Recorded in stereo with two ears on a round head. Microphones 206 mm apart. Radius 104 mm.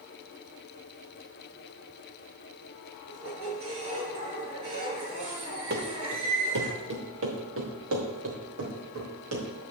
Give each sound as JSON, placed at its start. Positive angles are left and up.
{"t": 3.1, "sound": "a squeak", "side_deg": -70, "distance_m": 5.5}
{"t": 5.7, "sound": "running footsteps", "side_deg": -45, "distance_m": 2.5}